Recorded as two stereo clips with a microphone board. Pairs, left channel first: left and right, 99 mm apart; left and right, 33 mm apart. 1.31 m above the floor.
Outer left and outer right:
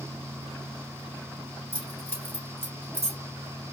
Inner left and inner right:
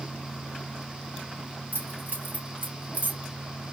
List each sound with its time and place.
1.7 s keys jangling: 70° right (ahead or behind), 3 m; by 3.2 s 65° right (ahead or behind), 2 m